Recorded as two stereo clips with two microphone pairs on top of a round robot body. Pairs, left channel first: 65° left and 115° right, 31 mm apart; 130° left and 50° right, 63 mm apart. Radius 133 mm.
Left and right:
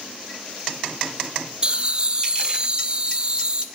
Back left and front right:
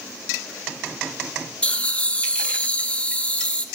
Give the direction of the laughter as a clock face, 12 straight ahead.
6 o'clock.